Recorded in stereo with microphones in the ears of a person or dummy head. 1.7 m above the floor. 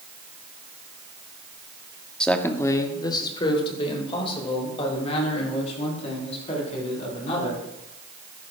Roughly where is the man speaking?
Centre.